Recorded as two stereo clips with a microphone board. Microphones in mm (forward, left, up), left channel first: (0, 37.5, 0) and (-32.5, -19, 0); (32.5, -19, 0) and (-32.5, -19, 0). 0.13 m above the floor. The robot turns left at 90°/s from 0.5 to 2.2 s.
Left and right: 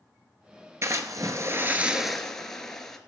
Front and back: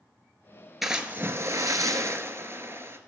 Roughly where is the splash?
Right.